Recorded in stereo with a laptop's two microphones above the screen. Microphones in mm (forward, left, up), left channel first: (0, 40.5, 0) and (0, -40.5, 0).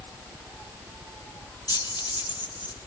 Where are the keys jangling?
55° left (ahead or behind), 0.8 m; by 2.9 s 80° left, 1.5 m.